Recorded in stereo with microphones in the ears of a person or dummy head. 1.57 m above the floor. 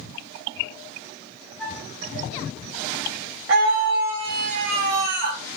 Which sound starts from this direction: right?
A scream, at 3.5 s.